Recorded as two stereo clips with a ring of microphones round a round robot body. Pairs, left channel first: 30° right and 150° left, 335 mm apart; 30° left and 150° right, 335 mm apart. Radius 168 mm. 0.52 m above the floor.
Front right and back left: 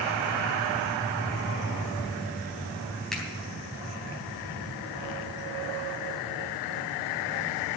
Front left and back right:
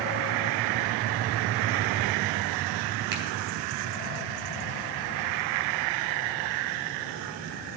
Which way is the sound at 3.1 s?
120° right.